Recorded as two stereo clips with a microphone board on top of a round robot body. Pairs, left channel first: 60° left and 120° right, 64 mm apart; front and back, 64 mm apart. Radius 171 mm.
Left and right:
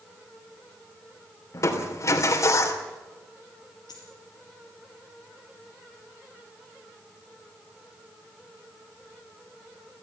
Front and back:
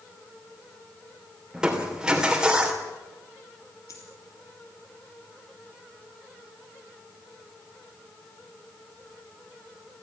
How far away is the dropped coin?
About 2.5 m.